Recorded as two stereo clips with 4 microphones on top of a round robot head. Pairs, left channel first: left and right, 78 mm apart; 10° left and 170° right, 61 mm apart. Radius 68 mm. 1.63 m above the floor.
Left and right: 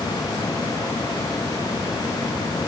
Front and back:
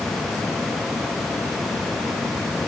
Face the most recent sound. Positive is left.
No sound to turn to.